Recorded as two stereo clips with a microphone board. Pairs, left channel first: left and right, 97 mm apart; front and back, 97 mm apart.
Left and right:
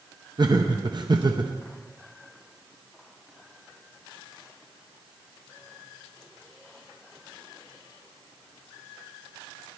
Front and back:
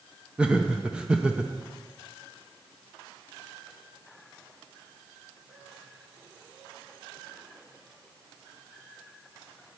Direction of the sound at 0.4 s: 105° right.